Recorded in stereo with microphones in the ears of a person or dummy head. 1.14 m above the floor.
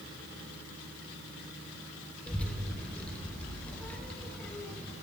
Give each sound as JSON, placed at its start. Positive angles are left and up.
{"t": 2.3, "sound": "a child speaking", "side_deg": 10, "distance_m": 0.8}